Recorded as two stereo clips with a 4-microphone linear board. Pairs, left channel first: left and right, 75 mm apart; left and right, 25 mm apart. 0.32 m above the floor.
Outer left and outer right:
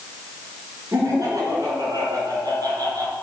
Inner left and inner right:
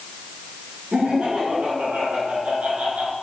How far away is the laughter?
About 4 m.